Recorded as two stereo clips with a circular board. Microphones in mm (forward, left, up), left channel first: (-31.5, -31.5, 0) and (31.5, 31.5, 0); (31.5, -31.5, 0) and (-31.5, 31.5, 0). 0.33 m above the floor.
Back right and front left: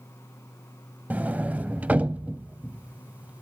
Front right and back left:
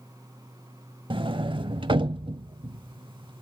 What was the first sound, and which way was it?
A sliding door, 115° left.